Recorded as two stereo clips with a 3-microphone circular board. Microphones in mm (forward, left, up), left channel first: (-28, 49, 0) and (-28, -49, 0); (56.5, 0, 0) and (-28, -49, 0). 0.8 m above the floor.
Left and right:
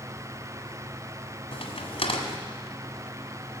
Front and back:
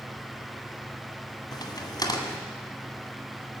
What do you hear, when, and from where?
1.5 s a crack: 75° left, 1.8 m